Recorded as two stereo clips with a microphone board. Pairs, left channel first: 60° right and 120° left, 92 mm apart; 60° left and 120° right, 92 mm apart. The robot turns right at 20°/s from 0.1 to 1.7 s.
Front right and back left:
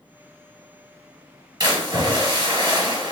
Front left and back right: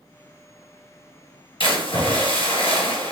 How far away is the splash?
About 2 m.